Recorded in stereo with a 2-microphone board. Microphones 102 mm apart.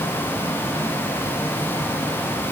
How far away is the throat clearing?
No throat clearing in this recording.